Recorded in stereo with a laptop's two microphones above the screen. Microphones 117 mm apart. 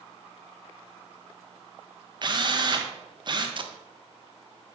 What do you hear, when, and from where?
2.2 s a drill: 40° right (ahead or behind), 1.2 m
3.6 s tape being pulled: 45° right (ahead or behind), 0.7 m